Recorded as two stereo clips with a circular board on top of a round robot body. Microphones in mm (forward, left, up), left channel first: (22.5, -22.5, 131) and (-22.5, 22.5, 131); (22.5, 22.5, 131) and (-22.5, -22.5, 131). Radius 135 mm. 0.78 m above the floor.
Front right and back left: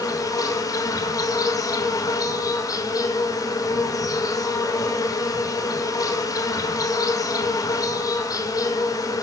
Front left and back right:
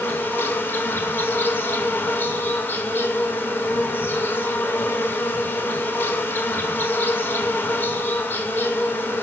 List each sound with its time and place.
0.0 s an insect: 15° right, 0.9 m